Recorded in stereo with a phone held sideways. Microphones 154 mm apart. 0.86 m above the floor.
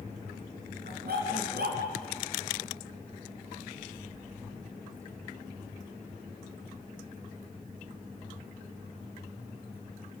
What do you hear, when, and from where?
0.8 s a dog barking: 85° right, 4 m